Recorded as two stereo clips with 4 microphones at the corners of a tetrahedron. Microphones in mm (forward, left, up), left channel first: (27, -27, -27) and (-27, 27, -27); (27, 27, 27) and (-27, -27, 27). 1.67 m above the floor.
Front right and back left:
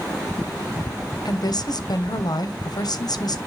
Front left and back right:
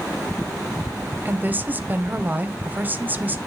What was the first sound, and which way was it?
A woman speaking, 70° right.